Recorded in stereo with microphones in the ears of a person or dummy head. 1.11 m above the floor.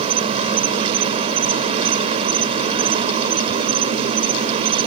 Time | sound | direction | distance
0.0 | an insect | 30° right (ahead or behind) | ?